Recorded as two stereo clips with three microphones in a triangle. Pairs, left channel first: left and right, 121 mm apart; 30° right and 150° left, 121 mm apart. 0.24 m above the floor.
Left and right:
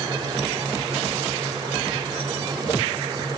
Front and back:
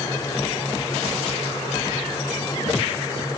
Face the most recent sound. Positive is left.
No sound to turn to.